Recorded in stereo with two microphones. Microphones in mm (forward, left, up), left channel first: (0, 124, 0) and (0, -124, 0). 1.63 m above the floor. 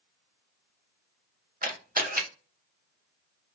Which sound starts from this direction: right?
A camera shutter, at 1.6 s.